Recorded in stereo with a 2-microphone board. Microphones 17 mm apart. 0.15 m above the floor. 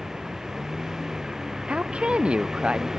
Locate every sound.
0.0 s a vehicle: 35° right (ahead or behind)
1.7 s a woman speaking: 80° right